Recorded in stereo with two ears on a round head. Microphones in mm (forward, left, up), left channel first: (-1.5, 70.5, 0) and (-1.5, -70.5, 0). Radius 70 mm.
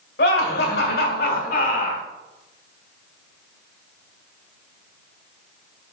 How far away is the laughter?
About 2.0 m.